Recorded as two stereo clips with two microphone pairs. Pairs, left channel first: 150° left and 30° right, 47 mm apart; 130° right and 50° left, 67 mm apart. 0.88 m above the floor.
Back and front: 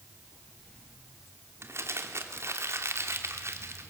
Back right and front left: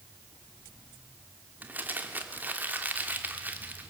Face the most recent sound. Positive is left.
turn(degrees=-10)